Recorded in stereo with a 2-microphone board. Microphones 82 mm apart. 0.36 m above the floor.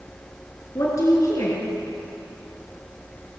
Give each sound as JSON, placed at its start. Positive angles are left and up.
{"t": 0.8, "sound": "a woman speaking", "side_deg": 45, "distance_m": 4.5}